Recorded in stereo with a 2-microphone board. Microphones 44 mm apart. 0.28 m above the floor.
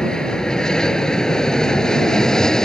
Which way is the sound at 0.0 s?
15° left (ahead or behind).